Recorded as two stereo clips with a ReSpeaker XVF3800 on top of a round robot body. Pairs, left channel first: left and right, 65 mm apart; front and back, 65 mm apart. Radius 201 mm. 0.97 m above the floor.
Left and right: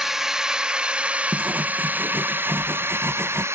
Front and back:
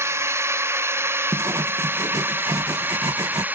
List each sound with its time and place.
0.0 s a drone: 170° right; by 3.5 s 120° right
1.3 s writing: 150° right